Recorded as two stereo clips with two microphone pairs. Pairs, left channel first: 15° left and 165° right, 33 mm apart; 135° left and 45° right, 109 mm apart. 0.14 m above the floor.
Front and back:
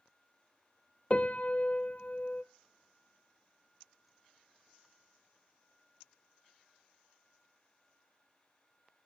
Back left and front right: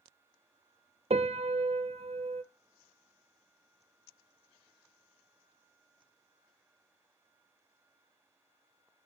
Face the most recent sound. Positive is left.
turn(degrees=-30)